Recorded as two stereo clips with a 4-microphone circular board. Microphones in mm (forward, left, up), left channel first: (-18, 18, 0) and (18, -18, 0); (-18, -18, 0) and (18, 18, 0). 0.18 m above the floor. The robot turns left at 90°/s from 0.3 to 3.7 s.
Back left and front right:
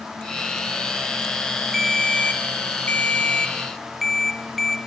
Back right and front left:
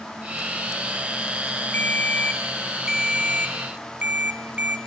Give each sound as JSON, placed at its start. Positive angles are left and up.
{"t": 1.7, "sound": "a ringtone", "azimuth_deg": -135, "distance_m": 1.2}